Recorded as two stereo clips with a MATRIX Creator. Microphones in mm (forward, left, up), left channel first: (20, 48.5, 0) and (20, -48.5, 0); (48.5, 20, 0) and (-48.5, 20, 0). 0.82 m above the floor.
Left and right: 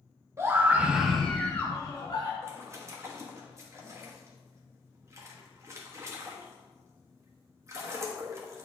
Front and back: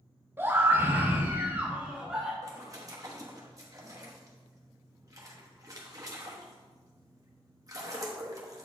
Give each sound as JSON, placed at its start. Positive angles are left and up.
{"t": 0.4, "sound": "a scream", "azimuth_deg": -130, "distance_m": 1.1}
{"t": 2.4, "sound": "a splash", "azimuth_deg": -140, "distance_m": 1.1}